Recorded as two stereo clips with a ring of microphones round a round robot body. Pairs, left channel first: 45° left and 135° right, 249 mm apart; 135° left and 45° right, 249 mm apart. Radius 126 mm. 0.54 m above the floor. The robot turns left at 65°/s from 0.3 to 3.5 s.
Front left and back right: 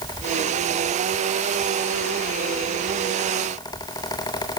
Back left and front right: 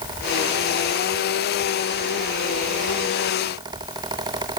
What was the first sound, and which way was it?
Only background noise.